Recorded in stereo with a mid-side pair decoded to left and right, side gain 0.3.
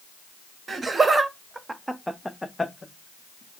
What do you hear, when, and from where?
0.7 s laughter: 55° right, 0.9 m; by 3.6 s 55° left, 0.9 m